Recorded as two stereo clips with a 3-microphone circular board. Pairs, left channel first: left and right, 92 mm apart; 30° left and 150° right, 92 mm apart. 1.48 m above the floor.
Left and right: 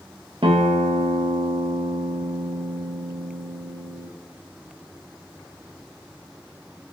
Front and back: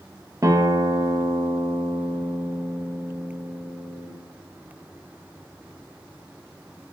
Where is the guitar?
100° right, 1.3 m.